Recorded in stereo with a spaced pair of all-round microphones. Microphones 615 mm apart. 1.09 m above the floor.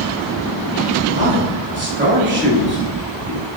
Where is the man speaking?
20° right (ahead or behind), 3 m.